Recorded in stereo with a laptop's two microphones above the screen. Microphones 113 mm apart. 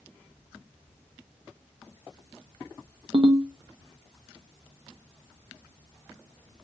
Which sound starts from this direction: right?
A ringtone, at 3.1 s.